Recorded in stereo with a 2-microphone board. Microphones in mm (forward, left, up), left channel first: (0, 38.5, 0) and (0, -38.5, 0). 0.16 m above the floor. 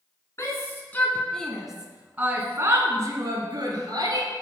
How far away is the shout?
About 1.4 m.